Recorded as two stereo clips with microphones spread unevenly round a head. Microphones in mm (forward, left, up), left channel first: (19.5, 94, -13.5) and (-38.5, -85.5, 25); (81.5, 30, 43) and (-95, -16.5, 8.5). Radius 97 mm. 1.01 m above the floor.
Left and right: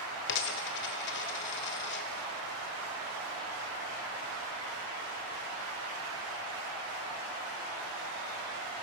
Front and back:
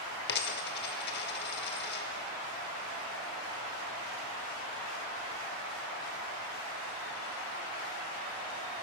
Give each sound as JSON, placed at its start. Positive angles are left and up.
{"t": 0.3, "sound": "a dropped coin", "azimuth_deg": 35, "distance_m": 1.3}